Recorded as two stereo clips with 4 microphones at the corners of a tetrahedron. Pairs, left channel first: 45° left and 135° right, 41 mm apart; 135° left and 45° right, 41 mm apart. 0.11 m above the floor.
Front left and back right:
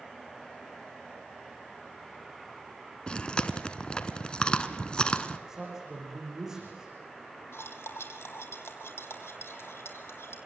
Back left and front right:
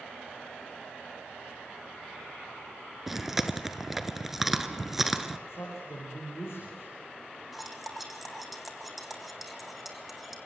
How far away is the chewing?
About 1.4 m.